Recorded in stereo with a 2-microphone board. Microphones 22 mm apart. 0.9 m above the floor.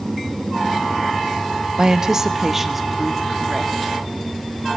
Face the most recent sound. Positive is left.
turn(degrees=0)  # may be behind; listen again after turning